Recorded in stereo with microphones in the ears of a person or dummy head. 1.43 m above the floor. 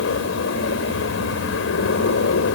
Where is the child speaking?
No child speaking in this recording.